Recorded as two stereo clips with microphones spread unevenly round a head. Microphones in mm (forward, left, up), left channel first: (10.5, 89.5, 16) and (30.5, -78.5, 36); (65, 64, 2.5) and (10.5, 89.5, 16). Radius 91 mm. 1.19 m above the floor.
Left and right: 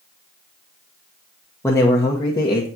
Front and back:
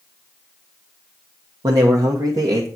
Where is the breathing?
No breathing in this recording.